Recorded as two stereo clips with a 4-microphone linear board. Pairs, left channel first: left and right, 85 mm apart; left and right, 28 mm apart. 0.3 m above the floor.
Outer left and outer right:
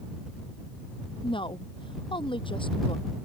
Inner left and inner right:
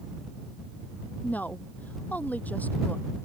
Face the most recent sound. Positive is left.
turn(degrees=80)